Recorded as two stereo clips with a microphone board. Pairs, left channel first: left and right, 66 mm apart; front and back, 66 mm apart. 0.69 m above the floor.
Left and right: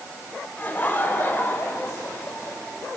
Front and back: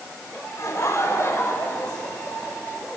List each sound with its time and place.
0.6 s laughter: 30° left, 3.5 m; by 2.6 s 50° left, 3.5 m